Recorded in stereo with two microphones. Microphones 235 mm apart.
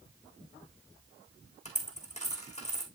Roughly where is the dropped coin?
Left.